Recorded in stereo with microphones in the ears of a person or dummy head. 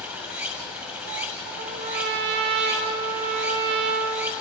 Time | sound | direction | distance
0.0 | running water | 10° right (ahead or behind) | 1.9 m
1.6 | a trumpet | 55° right (ahead or behind) | 2.5 m